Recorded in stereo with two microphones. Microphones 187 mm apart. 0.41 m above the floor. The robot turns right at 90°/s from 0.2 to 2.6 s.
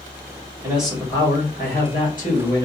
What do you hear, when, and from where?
0.6 s a man speaking: 20° right, 2.5 m; by 2.7 s 160° left, 2.5 m